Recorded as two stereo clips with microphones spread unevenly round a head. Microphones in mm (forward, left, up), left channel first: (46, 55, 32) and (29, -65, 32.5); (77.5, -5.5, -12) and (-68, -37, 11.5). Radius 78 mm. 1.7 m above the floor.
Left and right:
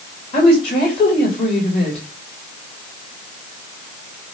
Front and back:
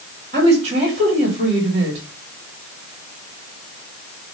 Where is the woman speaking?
140° left, 3.5 m.